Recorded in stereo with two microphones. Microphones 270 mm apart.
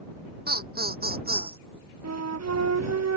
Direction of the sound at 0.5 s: 35° right (ahead or behind).